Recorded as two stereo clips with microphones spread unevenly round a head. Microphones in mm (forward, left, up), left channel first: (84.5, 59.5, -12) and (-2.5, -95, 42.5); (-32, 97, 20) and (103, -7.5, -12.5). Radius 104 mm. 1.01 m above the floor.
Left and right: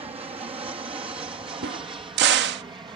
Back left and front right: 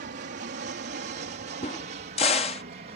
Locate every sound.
0.0 s an aircraft: 55° right; by 3.0 s 45° right
1.6 s a crack: 155° right